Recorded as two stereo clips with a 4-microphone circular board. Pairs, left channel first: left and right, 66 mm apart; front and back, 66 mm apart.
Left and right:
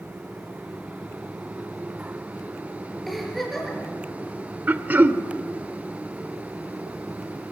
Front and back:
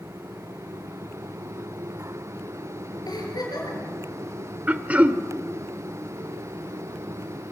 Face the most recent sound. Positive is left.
turn(degrees=-130)